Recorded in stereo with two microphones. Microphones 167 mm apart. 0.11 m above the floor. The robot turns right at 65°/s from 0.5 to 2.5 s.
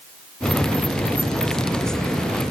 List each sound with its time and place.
Only background noise.